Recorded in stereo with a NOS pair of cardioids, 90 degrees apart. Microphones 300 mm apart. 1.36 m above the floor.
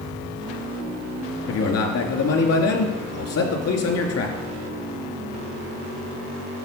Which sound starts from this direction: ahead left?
A man speaking, at 1.5 s.